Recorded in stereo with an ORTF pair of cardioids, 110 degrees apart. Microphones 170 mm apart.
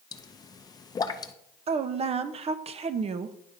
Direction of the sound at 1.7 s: 40° right.